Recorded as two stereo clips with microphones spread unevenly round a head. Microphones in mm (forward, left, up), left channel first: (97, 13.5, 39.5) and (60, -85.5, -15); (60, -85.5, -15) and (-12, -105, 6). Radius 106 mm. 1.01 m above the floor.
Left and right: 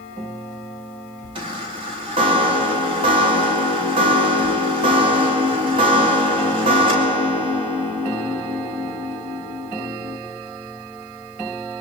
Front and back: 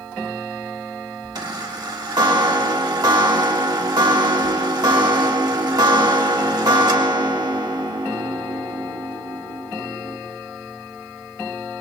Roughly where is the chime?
Behind right.